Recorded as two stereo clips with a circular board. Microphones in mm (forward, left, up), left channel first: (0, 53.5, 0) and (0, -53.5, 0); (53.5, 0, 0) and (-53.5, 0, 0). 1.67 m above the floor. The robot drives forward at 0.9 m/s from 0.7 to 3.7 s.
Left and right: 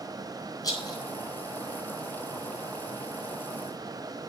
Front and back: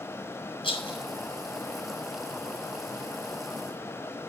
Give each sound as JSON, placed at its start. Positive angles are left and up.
{"t": 0.6, "sound": "a rattle", "azimuth_deg": 35, "distance_m": 6.5}